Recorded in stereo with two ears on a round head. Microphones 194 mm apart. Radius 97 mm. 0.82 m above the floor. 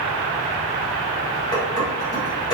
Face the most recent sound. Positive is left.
turn(degrees=20)  # may be behind; listen again after turning